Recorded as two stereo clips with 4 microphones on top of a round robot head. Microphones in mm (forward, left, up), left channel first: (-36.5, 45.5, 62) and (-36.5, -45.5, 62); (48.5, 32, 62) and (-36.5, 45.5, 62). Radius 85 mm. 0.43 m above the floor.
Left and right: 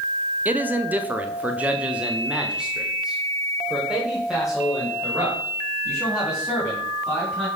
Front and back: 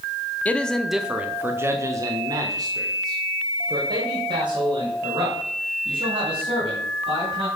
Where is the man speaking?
50° right, 1.0 m; by 7.5 s straight behind, 4.5 m.